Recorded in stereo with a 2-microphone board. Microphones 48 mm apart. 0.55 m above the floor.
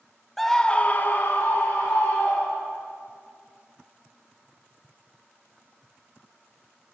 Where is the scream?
5° left (ahead or behind), 0.7 m; by 2.8 s 50° left (ahead or behind), 2 m.